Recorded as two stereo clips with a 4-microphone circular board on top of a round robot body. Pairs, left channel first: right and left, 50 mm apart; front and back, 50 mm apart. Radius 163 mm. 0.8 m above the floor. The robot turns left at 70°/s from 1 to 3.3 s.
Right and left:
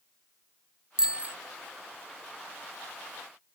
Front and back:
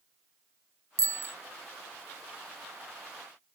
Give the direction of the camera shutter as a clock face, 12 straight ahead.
No camera shutter in this recording.